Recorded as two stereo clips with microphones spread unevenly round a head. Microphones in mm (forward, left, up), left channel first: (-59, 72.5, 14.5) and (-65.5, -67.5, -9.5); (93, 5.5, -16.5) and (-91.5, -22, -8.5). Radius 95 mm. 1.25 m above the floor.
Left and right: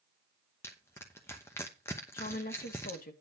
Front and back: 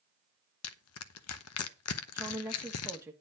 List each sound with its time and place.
0.6 s crushing: 10° left, 0.8 m
2.1 s a woman speaking: 110° left, 1.7 m